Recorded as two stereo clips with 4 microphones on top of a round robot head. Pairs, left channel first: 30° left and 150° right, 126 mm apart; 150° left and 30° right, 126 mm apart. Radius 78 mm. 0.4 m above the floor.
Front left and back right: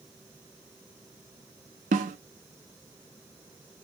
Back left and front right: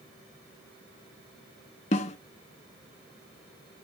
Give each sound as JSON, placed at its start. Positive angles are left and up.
{"t": 1.9, "sound": "a snare drum", "azimuth_deg": -175, "distance_m": 0.7}